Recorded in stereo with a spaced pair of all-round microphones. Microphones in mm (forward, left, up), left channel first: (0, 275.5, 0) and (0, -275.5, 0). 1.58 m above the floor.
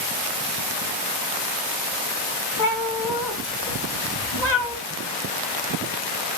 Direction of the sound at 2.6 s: 35° left (ahead or behind).